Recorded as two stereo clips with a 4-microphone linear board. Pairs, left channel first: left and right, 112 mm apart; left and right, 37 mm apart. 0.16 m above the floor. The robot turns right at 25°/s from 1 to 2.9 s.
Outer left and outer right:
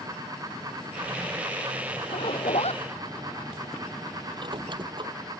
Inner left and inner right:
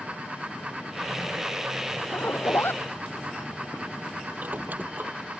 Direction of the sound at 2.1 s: 70° left (ahead or behind).